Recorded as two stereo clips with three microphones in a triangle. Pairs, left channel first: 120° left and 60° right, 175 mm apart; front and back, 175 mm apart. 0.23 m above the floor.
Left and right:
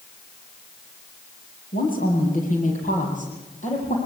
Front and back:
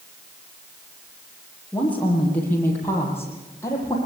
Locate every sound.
1.7 s a woman speaking: 85° left, 7.5 m; by 4.0 s 75° left, 8.5 m